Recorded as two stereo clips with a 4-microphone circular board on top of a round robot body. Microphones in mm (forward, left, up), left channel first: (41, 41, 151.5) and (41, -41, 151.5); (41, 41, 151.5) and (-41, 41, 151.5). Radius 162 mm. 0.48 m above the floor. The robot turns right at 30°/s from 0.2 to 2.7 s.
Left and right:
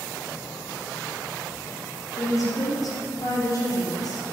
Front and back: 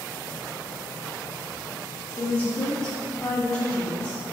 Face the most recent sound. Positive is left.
turn(degrees=75)